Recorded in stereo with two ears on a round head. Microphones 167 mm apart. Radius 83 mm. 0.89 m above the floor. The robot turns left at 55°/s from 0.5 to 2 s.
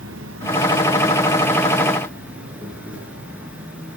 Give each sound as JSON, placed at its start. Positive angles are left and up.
{"t": 0.0, "sound": "an insect", "azimuth_deg": -90, "distance_m": 3.5}